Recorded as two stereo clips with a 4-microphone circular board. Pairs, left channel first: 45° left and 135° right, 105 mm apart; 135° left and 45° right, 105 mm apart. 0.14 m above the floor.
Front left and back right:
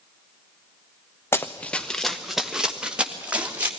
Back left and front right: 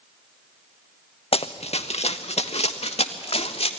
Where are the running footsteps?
110° left, 0.8 m; by 3.7 s 150° left, 2 m.